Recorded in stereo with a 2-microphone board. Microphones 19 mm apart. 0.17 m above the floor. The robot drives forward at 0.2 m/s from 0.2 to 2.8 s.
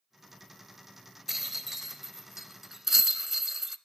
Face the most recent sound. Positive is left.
turn(degrees=-20)  # may be behind; listen again after turning